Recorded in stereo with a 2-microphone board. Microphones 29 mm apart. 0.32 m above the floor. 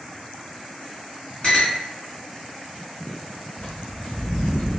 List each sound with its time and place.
1.4 s a clink: 40° left (ahead or behind), 1.9 m
3.6 s footsteps: 55° left (ahead or behind), 1.7 m; by 4.7 s 75° left (ahead or behind), 1.2 m